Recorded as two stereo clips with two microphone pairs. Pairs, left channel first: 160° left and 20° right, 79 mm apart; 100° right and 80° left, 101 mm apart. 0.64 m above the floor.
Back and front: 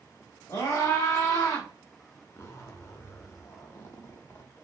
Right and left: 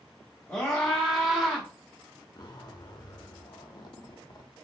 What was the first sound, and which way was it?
A scream, straight behind.